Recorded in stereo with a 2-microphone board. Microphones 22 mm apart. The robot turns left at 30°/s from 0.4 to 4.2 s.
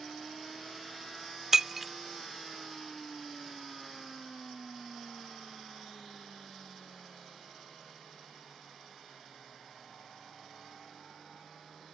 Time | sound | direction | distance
1.5 | breaking glass | 20° right (ahead or behind) | ?